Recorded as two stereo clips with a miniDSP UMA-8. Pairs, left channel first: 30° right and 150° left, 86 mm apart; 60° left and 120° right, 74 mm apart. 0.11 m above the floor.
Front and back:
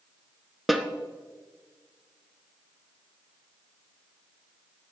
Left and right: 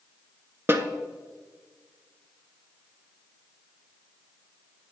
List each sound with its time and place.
0.7 s a snare drum: 125° right, 0.8 m